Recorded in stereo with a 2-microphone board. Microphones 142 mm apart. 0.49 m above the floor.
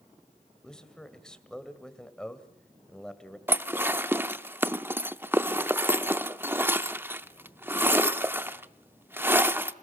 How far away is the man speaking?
About 2.0 m.